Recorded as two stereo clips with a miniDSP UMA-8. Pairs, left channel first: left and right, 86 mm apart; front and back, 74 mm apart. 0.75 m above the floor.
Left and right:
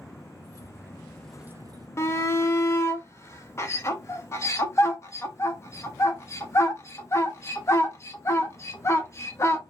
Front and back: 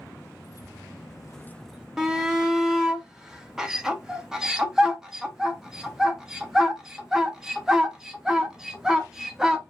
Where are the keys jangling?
40° left, 1.7 m; by 1.9 s 105° right, 0.8 m.